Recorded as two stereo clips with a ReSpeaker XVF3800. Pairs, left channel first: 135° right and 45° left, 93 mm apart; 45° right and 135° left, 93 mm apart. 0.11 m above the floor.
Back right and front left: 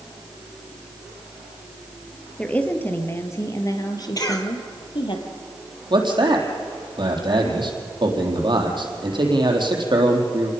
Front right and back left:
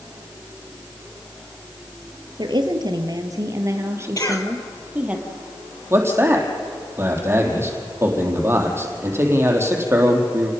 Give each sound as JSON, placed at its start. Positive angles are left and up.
{"t": 2.4, "sound": "a woman speaking", "azimuth_deg": 150, "distance_m": 2.5}
{"t": 4.2, "sound": "a cough", "azimuth_deg": -90, "distance_m": 3.0}
{"t": 5.9, "sound": "a man speaking", "azimuth_deg": 75, "distance_m": 4.0}